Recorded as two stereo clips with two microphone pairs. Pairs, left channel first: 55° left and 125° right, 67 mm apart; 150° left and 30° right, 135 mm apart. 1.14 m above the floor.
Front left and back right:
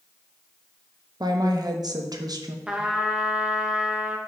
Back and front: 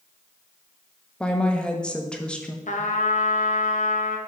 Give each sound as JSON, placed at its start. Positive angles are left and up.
{"t": 1.2, "sound": "a woman speaking", "azimuth_deg": -130, "distance_m": 0.9}
{"t": 2.7, "sound": "a trumpet", "azimuth_deg": 155, "distance_m": 0.8}